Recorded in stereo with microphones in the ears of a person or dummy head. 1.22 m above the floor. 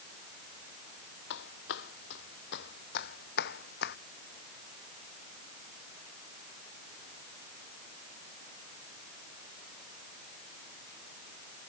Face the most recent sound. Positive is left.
turn(degrees=60)  # may be behind; listen again after turning